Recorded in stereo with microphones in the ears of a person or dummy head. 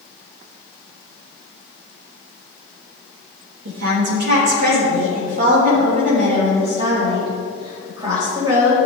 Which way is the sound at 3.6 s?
70° right (ahead or behind).